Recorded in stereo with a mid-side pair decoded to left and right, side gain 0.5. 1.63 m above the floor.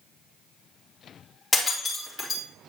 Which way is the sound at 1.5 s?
20° left.